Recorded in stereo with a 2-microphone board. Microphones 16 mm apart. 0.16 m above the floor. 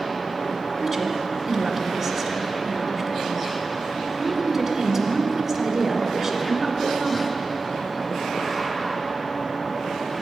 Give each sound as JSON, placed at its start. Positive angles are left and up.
{"t": 0.8, "sound": "a woman speaking", "side_deg": -10, "distance_m": 1.4}